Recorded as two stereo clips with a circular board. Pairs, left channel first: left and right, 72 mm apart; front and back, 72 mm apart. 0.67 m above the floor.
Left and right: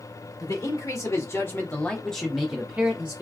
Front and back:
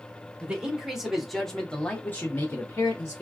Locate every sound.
0.4 s a man speaking: 105° left, 1.2 m; by 3.2 s 35° right, 1.0 m